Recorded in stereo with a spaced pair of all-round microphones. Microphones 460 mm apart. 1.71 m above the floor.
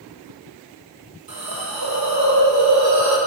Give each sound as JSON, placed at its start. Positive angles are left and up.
{"t": 1.3, "sound": "a hiss", "side_deg": -50, "distance_m": 0.6}